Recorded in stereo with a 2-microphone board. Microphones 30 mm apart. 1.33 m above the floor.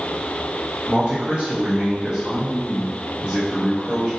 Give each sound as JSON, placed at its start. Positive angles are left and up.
{"t": 0.9, "sound": "a man speaking", "side_deg": -40, "distance_m": 0.9}